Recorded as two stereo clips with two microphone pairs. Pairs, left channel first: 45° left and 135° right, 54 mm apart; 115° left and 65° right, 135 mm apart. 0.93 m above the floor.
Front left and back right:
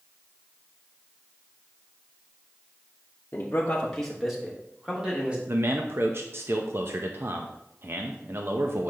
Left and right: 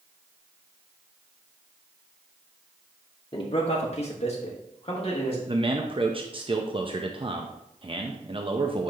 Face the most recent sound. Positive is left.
turn(degrees=-110)